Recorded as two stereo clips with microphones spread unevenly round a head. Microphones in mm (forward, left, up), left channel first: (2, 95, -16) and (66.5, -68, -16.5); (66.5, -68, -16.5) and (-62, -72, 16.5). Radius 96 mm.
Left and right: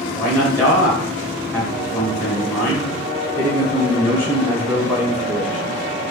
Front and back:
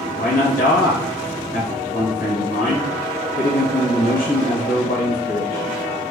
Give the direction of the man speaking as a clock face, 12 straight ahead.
12 o'clock.